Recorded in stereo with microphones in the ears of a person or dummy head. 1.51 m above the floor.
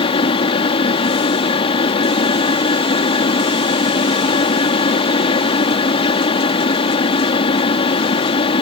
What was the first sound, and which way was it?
A fan, 35° left (ahead or behind).